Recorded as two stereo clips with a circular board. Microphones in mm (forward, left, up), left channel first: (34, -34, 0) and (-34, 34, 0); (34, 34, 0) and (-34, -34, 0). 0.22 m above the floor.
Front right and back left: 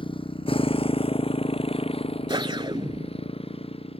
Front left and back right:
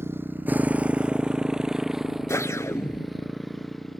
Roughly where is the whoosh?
Left.